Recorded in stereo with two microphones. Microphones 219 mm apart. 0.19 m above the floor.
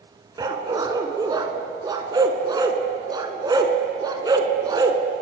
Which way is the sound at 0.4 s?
20° right (ahead or behind).